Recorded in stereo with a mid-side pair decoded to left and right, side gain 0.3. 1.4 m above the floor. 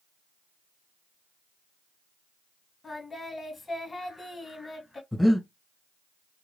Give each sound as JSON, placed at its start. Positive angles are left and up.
{"t": 2.8, "sound": "singing", "azimuth_deg": 40, "distance_m": 1.7}
{"t": 5.1, "sound": "breathing", "azimuth_deg": 15, "distance_m": 1.1}